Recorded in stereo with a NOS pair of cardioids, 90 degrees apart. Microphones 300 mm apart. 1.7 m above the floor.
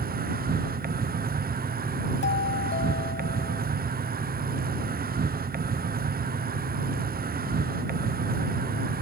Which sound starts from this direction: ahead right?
An insect, at 0.0 s.